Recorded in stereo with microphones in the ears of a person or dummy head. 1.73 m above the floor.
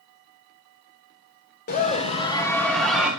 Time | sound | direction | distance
1.7 | a scream | 45° left (ahead or behind) | 1.8 m